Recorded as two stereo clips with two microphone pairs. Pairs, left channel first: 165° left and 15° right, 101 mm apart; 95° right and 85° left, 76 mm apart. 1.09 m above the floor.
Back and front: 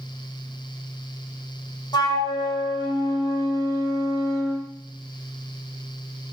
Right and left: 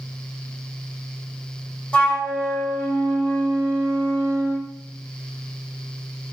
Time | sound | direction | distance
1.9 | a flute | 165° right | 0.9 m